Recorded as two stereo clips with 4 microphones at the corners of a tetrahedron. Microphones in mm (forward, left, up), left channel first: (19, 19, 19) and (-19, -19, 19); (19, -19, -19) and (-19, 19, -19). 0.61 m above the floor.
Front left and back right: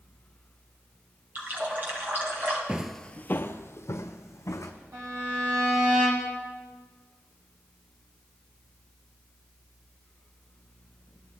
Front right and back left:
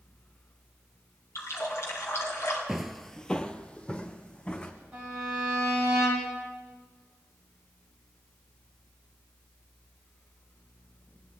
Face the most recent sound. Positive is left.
turn(degrees=-150)